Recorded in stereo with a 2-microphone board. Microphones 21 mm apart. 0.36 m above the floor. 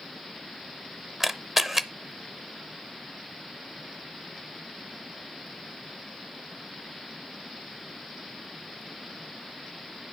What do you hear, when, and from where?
1.2 s a camera shutter: 5° right (ahead or behind), 0.6 m